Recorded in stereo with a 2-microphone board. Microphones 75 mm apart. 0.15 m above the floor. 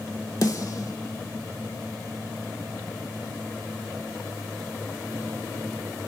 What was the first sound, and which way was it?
A snare drum, 50° left (ahead or behind).